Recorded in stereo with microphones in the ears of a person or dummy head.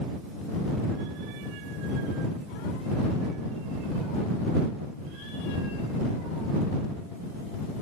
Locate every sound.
Only background noise.